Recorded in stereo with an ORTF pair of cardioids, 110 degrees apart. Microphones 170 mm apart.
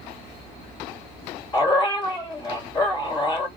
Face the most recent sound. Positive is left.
turn(degrees=25)